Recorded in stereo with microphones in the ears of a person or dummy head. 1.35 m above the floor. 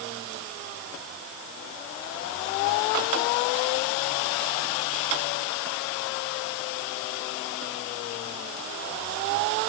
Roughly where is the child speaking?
I don't hear a child speaking.